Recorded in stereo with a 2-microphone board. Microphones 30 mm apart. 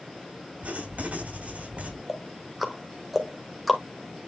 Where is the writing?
60° right (ahead or behind), 4 m.